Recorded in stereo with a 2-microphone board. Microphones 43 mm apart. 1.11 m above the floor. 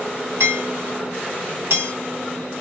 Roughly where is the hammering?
Right.